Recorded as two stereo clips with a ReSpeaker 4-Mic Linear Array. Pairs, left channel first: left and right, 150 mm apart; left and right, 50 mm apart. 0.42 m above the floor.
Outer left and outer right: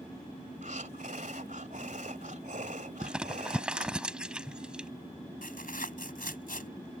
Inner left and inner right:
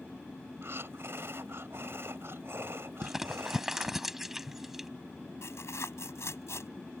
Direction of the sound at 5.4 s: 70° left (ahead or behind).